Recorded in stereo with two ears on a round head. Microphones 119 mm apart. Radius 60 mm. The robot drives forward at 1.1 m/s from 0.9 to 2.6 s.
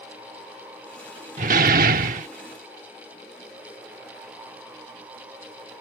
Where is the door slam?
55° right (ahead or behind); by 2.3 s 60° right (ahead or behind).